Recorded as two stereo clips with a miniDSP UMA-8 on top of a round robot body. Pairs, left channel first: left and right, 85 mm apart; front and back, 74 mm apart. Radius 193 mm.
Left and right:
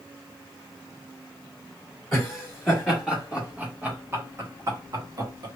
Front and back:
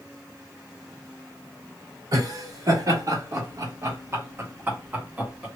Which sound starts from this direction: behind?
Laughter, at 2.1 s.